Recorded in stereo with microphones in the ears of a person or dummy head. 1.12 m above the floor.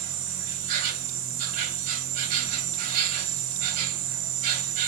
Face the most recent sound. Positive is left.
turn(degrees=-40)  # may be behind; listen again after turning